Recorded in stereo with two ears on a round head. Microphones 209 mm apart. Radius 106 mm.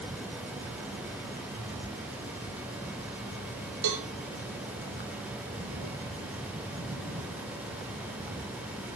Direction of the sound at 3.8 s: 80° right.